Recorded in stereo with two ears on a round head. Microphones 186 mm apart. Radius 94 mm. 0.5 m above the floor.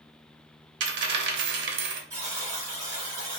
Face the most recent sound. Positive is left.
turn(degrees=-20)  # may be behind; listen again after turning